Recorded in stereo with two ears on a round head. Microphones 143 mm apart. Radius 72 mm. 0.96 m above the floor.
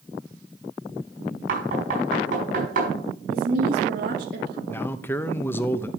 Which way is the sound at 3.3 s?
60° right (ahead or behind).